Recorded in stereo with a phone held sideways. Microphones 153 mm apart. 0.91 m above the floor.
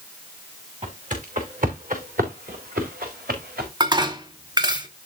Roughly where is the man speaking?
I don't hear a man speaking.